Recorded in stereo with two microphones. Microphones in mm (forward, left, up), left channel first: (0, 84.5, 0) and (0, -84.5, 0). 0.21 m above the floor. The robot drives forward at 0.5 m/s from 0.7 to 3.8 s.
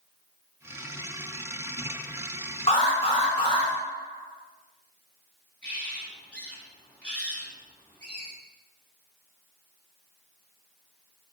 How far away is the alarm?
About 1.7 m.